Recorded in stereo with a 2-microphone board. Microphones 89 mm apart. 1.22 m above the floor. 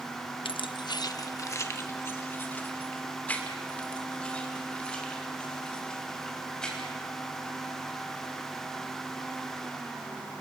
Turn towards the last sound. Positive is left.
turn(degrees=10)  # may be behind; listen again after turning